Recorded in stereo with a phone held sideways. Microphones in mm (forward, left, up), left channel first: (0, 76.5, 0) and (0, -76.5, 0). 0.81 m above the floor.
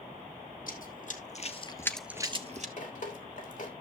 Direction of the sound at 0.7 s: 65° left (ahead or behind).